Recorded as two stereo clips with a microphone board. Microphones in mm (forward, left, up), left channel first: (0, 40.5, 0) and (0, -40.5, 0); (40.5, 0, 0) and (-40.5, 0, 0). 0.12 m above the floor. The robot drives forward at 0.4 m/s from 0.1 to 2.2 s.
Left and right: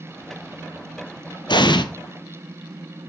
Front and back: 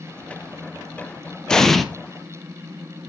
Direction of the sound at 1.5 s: 80° left.